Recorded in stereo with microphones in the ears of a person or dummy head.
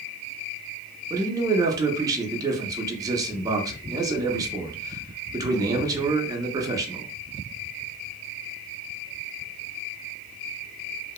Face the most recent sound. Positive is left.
turn(degrees=-20)  # may be behind; listen again after turning